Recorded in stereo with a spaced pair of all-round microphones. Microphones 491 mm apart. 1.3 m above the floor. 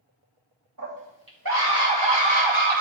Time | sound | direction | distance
0.8 | a scream | 40° right (ahead or behind) | 2.5 m